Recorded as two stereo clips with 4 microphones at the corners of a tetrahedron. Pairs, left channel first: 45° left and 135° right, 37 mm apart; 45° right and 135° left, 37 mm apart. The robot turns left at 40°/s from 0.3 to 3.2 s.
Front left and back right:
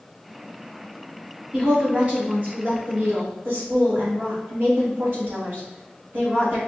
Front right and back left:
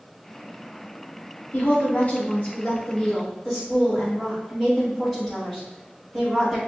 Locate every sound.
1.5 s a woman speaking: 55° right, 1.9 m; by 6.6 s 120° right, 1.9 m